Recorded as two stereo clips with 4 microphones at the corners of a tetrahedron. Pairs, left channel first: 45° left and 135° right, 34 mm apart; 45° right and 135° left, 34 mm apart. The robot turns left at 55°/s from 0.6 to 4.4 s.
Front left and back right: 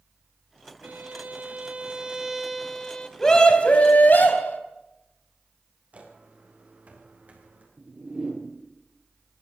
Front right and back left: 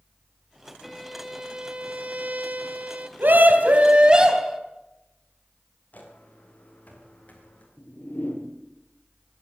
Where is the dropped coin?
No dropped coin in this recording.